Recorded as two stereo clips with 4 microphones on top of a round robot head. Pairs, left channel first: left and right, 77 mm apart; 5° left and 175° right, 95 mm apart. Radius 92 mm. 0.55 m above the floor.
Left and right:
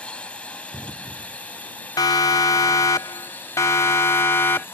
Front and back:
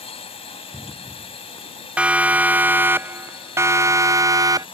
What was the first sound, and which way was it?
A drone, 15° left.